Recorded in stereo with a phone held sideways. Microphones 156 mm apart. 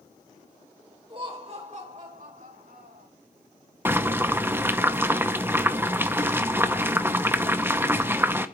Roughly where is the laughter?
Right.